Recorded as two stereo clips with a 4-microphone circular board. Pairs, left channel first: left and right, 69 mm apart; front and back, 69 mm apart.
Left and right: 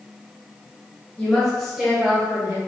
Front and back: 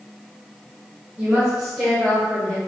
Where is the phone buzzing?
No phone buzzing in this recording.